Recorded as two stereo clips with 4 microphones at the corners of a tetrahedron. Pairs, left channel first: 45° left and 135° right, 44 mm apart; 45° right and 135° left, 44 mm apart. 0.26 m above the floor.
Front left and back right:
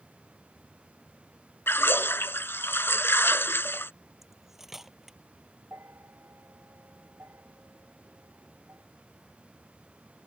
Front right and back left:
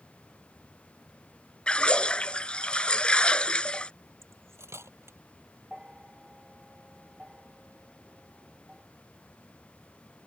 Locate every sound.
1.7 s a splash: 20° left
4.2 s cutlery clinking: 140° left
5.7 s a bell: 150° right